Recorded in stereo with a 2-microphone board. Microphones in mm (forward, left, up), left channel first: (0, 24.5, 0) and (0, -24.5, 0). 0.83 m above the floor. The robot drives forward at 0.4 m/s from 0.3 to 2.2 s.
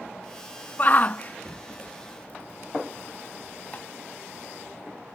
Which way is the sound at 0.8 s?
35° left (ahead or behind).